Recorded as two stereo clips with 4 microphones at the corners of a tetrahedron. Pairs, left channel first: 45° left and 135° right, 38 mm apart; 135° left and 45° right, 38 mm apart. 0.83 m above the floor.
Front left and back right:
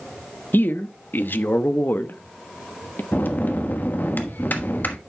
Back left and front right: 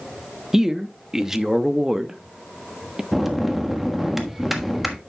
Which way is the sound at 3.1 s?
40° left.